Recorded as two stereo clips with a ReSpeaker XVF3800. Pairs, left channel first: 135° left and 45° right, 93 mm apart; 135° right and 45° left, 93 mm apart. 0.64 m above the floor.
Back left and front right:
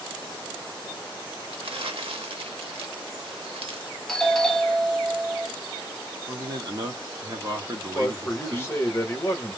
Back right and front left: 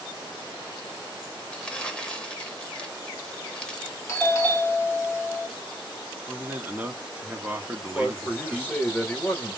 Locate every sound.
1.5 s crumpling: 55° right, 0.7 m
4.1 s a doorbell: 140° right, 1.1 m
6.3 s a man speaking: 20° right, 1.0 m
8.0 s a man speaking: 170° left, 0.9 m